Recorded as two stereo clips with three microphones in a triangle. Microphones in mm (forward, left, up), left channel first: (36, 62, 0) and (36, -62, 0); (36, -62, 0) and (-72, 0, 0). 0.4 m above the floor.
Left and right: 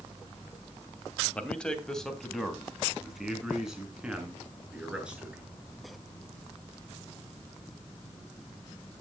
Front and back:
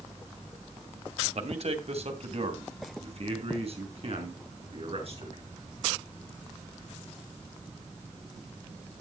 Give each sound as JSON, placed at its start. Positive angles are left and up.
{"t": 1.4, "sound": "a man speaking", "azimuth_deg": 170, "distance_m": 2.5}